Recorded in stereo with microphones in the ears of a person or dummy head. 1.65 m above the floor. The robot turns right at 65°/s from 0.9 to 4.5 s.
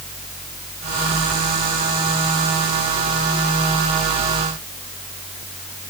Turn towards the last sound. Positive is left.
No sound to turn to.